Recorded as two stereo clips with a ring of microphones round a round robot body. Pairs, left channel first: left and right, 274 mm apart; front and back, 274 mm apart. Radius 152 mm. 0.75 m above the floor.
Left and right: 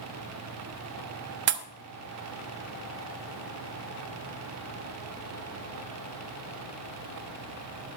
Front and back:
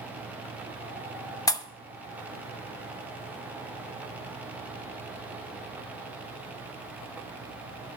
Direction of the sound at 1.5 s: 70° right.